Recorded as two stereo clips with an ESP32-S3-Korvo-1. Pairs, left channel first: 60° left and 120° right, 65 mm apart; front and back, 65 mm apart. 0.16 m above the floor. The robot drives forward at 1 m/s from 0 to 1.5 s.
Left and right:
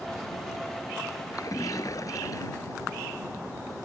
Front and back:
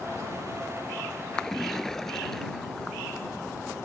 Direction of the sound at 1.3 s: 75° left.